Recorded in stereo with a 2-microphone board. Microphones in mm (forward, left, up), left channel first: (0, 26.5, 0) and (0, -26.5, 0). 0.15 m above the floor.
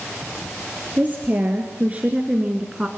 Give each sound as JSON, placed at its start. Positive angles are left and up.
{"t": 1.0, "sound": "a woman speaking", "side_deg": -30, "distance_m": 2.5}